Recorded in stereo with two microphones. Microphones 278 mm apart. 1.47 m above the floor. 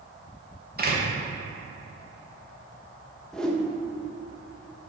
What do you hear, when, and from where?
0.8 s a door slam: 35° right (ahead or behind), 1.3 m
3.3 s a whoosh: centre (ahead or behind), 0.7 m